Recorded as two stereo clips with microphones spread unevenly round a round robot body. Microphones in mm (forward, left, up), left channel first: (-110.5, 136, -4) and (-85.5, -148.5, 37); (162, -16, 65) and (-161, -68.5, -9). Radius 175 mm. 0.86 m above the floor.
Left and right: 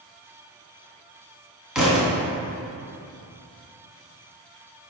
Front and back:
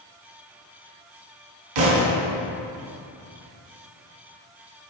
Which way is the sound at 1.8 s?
170° right.